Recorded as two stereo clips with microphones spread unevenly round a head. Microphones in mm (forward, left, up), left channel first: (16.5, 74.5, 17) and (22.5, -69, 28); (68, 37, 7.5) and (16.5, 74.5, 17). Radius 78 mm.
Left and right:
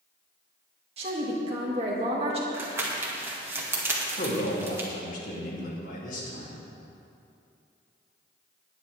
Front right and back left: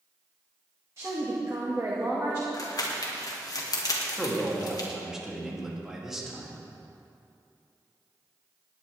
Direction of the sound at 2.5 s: 15° right.